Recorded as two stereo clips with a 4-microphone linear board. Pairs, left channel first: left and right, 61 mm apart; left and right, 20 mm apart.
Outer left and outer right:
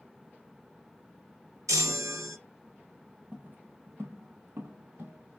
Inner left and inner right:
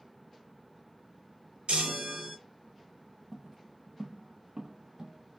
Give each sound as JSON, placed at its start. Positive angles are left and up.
{"t": 1.7, "sound": "a chime", "side_deg": -65, "distance_m": 1.5}
{"t": 3.3, "sound": "footsteps", "side_deg": -25, "distance_m": 0.9}